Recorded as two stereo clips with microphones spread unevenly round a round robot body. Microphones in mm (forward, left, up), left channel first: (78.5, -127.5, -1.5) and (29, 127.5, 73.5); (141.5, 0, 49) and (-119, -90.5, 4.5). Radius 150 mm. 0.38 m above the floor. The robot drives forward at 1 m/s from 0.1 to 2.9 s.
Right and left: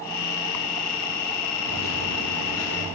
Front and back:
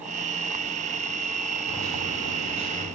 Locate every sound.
1.7 s a microwave: 80° right, 3.5 m; by 2.9 s 100° right, 3.5 m